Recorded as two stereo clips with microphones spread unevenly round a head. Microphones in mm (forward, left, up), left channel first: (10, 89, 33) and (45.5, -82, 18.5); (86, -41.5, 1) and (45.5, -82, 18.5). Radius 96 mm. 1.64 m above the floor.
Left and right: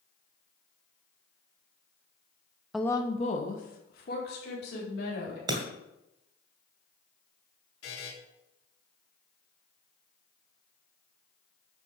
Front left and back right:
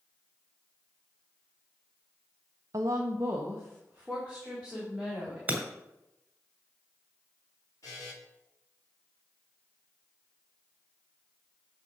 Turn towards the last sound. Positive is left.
turn(degrees=115)